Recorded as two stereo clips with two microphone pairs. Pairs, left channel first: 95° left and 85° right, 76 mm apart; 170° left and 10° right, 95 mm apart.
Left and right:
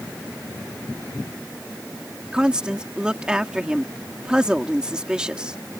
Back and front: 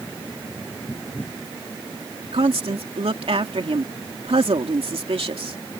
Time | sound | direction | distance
2.3 | a woman speaking | 5° right | ?